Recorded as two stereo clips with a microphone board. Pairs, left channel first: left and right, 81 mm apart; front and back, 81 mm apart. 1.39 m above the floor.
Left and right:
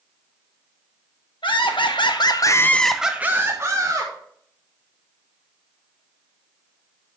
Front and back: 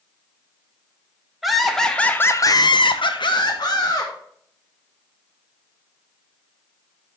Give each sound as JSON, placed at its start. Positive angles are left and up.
{"t": 1.4, "sound": "laughter", "azimuth_deg": 95, "distance_m": 1.4}